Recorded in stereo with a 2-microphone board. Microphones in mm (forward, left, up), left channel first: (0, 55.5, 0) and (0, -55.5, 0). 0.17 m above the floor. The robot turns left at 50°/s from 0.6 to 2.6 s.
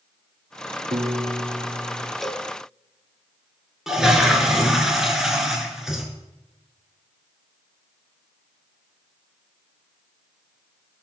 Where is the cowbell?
Centre (ahead or behind), 0.9 m; by 2.5 s 5° left (ahead or behind), 0.9 m.